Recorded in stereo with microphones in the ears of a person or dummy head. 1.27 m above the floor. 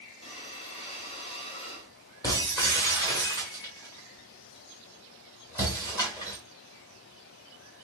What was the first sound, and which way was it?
Breathing, 30° left (ahead or behind).